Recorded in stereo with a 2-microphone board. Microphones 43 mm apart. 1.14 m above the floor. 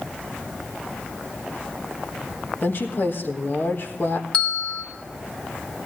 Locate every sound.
2.6 s a woman speaking: 50° left (ahead or behind), 1.5 m
4.3 s a bell: 20° left (ahead or behind), 2.0 m